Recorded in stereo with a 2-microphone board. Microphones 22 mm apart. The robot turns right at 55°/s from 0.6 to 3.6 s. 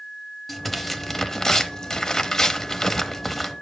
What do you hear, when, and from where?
0.5 s tearing paper: 10° left (ahead or behind), 1.0 m; by 3.5 s centre (ahead or behind), 1.0 m